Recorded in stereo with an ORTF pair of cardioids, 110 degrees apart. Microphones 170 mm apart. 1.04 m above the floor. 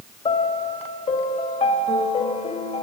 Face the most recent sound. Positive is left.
turn(degrees=40)